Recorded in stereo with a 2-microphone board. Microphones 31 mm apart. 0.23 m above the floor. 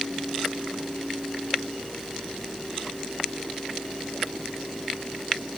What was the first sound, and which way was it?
Only background noise.